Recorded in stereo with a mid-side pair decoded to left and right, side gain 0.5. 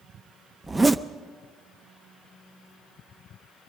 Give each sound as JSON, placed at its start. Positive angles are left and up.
{"t": 0.6, "sound": "a zipper", "azimuth_deg": -20, "distance_m": 0.6}